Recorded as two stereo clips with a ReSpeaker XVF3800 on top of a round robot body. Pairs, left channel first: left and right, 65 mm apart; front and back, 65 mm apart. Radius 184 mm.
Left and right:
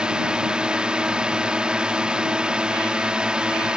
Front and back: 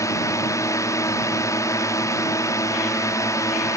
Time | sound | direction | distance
0.0 | a drone | 15° right | ?